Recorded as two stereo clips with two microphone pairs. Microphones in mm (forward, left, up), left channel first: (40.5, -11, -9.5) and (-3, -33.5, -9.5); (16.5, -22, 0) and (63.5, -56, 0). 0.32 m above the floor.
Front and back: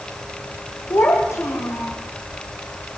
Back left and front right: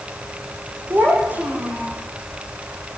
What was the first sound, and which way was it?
A child speaking, 20° left.